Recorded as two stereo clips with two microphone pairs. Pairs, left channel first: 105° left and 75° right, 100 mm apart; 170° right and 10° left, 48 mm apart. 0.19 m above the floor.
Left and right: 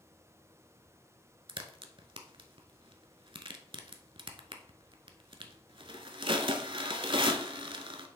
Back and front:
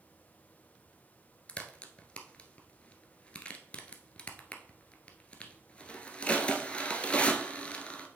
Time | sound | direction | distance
1.5 | a crack | 110° right | 0.8 m